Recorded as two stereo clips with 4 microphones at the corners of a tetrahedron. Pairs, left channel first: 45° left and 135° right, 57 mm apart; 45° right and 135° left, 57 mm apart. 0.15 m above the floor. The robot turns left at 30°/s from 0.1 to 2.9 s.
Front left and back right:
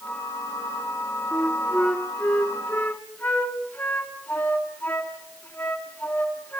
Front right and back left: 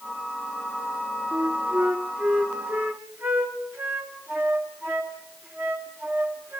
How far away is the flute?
About 2 m.